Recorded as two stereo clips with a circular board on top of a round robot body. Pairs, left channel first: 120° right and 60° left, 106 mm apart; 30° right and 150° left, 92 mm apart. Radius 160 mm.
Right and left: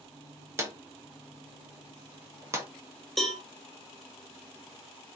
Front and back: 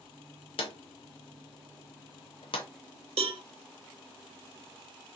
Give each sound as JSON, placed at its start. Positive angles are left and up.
{"t": 0.6, "sound": "a drawer", "azimuth_deg": -5, "distance_m": 0.6}
{"t": 3.2, "sound": "a cowbell", "azimuth_deg": 155, "distance_m": 0.6}